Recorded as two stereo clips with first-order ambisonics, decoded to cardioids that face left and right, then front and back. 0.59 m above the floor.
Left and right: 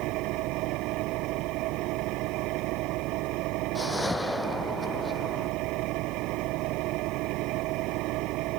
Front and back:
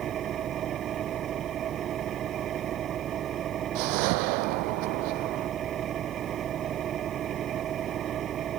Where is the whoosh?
170° left.